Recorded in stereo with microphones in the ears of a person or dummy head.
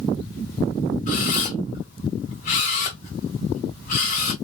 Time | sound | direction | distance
1.1 | a camera shutter | 50° left (ahead or behind) | 1.6 m